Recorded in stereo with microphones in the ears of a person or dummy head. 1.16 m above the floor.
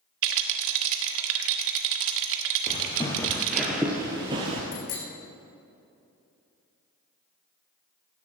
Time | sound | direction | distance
0.2 | a rattle | 70° right (ahead or behind) | 1.4 m
2.7 | footsteps | 25° left (ahead or behind) | 1.5 m
4.7 | a bicycle bell | 45° left (ahead or behind) | 2.5 m